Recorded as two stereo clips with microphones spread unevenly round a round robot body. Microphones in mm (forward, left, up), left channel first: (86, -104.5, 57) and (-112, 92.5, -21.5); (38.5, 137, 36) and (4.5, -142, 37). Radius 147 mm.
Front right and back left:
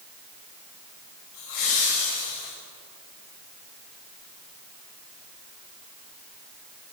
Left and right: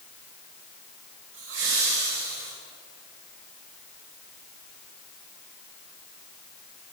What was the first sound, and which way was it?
Laughter, 55° right.